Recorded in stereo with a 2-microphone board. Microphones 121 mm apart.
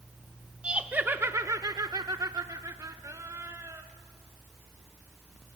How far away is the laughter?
About 1.0 m.